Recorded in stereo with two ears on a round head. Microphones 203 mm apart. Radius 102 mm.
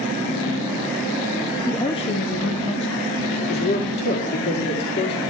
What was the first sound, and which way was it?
A woman speaking, 5° left (ahead or behind).